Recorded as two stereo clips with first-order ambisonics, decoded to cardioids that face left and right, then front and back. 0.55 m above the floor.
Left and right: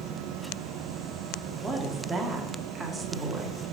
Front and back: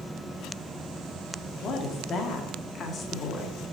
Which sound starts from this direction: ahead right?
A woman speaking, at 1.6 s.